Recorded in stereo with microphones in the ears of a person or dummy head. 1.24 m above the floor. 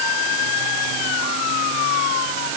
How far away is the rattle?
No rattle in this recording.